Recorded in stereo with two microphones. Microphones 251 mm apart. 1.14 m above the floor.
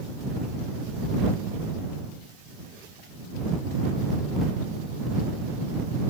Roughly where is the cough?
No cough in this recording.